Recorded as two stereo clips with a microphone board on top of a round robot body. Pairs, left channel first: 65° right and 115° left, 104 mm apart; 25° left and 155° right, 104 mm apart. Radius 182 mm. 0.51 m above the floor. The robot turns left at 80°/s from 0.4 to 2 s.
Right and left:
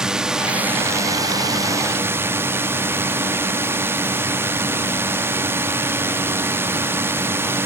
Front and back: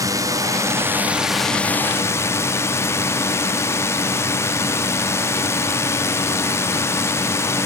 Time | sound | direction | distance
0.0 | a drone | 170° right | ?